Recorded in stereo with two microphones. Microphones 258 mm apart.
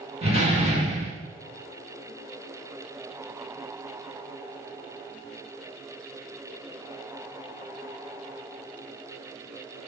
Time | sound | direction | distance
0.2 | a door slam | 25° right (ahead or behind) | 1.6 m